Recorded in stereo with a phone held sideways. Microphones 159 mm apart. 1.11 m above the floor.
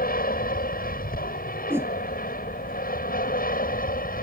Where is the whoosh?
15° right (ahead or behind).